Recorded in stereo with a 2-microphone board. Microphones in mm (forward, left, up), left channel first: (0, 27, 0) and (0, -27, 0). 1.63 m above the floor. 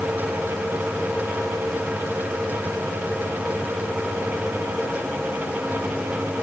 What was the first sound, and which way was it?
Only background noise.